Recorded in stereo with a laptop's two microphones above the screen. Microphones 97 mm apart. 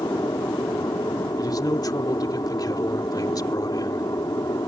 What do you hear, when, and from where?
0.0 s an aircraft: 40° left (ahead or behind)
1.4 s a man speaking: 40° left (ahead or behind)